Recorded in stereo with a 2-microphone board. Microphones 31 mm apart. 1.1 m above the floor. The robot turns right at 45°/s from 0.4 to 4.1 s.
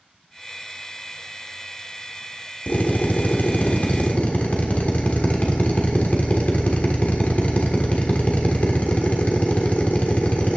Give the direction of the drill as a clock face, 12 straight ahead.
10 o'clock.